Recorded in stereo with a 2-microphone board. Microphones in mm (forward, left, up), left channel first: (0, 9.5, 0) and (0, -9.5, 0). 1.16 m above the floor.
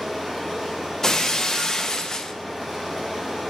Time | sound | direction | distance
0.0 | running water | 5° left (ahead or behind) | 3.5 m
1.0 | breaking glass | 30° left (ahead or behind) | 0.5 m